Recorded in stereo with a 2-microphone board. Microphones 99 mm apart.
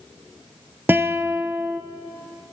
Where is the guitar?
20° right (ahead or behind), 0.6 m.